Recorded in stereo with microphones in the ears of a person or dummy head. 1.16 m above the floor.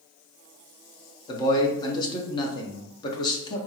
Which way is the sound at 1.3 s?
25° left (ahead or behind).